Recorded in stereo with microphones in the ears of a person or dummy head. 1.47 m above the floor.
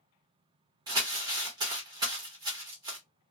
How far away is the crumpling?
About 1.0 m.